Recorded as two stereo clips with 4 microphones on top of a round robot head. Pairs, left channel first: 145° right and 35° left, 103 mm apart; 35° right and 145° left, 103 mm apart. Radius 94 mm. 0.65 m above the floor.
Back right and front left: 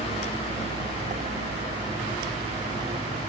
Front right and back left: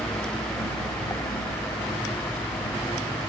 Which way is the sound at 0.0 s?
30° left.